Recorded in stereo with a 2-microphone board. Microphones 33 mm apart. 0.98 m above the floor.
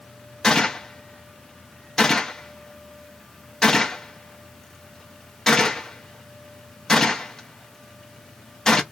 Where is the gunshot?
15° left (ahead or behind), 0.8 m.